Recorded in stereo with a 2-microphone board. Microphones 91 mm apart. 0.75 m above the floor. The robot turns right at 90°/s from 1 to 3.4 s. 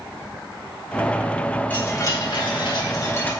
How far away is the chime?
About 4 m.